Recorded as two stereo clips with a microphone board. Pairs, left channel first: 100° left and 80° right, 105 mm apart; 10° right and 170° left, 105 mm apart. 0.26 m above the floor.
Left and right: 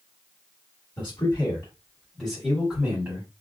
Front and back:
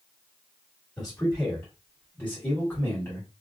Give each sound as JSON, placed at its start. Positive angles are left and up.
{"t": 1.0, "sound": "a man speaking", "azimuth_deg": 70, "distance_m": 1.8}